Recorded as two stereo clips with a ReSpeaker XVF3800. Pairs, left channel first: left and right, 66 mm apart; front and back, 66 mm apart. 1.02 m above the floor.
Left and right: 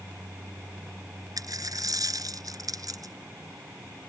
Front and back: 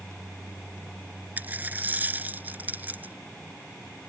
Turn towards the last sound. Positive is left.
turn(degrees=-115)